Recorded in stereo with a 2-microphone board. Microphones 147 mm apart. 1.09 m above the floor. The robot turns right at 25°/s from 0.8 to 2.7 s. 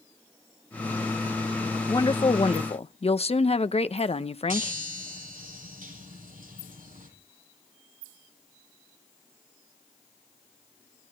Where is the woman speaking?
25° left (ahead or behind), 0.9 m; by 4.7 s 45° left (ahead or behind), 0.9 m.